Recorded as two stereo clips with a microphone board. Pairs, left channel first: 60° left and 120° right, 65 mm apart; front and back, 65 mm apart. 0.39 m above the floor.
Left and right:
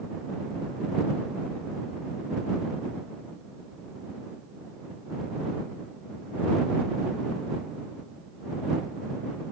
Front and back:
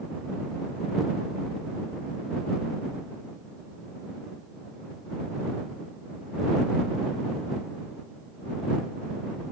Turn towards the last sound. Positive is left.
No sound to turn to.